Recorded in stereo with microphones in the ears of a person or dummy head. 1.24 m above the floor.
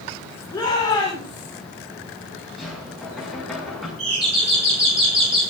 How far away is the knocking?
About 7.5 m.